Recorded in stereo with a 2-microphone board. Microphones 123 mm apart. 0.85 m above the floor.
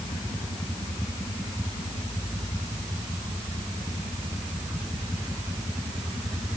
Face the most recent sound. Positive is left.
No sound to turn to.